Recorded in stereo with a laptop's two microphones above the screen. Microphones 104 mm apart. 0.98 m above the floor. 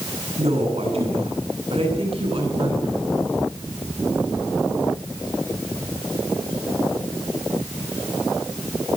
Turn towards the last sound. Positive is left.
turn(degrees=-55)  # may be behind; listen again after turning